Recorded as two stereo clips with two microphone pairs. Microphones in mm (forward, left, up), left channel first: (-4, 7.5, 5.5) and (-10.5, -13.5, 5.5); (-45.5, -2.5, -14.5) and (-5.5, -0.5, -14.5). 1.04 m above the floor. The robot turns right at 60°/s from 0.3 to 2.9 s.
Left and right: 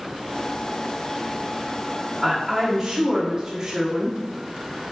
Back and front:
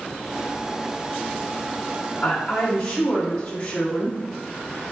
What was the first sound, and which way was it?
A woman speaking, 165° left.